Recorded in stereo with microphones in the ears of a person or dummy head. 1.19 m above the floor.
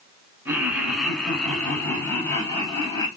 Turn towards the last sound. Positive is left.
turn(degrees=30)  # may be behind; listen again after turning